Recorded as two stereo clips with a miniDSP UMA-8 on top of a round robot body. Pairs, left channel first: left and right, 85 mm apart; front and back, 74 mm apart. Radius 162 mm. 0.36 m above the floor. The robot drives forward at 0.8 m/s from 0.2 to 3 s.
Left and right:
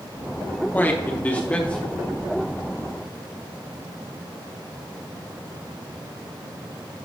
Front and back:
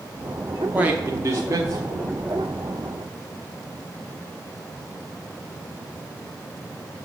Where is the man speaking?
130° left, 1.1 m; by 2.2 s 165° left, 1.8 m.